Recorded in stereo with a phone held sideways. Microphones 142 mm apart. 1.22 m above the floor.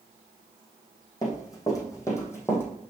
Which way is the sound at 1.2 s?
25° left (ahead or behind).